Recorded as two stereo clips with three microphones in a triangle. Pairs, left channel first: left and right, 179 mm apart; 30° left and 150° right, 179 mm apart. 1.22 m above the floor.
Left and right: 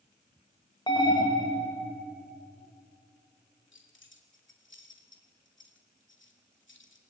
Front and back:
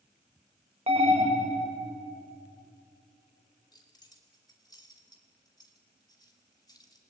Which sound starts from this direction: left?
Keys jangling, at 3.7 s.